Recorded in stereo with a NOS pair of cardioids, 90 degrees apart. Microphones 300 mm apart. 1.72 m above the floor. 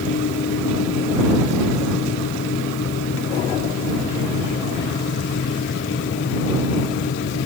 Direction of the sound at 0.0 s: 40° left.